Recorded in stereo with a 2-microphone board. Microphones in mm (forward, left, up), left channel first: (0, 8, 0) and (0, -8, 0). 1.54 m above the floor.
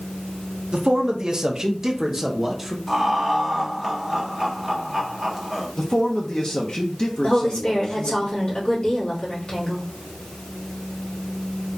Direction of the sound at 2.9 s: 5° right (ahead or behind).